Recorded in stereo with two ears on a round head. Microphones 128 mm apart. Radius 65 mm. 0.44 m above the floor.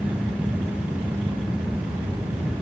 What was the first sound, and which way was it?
Only background noise.